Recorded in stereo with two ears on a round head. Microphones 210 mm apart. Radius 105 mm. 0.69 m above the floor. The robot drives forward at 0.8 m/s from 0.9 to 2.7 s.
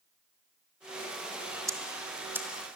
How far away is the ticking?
About 1.3 m.